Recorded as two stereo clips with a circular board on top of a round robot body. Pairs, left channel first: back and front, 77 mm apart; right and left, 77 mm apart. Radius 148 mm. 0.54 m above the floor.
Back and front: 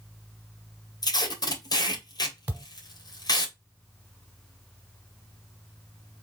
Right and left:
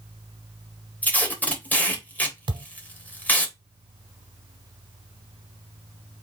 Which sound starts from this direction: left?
A thud, at 2.5 s.